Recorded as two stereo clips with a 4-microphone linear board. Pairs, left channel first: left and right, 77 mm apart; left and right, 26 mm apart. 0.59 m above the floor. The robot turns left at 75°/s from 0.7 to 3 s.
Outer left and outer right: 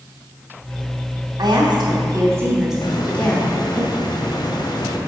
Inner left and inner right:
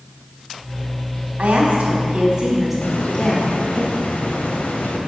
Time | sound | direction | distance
1.4 | a woman speaking | 75° right | 4 m
2.8 | a hiss | 75° left (ahead or behind) | 2.5 m